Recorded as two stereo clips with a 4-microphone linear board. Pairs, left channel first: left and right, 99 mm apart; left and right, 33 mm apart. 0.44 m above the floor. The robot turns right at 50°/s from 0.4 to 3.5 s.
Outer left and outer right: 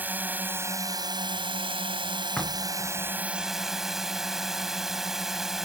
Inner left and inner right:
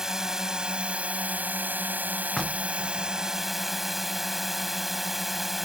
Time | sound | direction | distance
0.0 | a drone | 160° right | ?
2.4 | knocking | 10° left (ahead or behind) | ?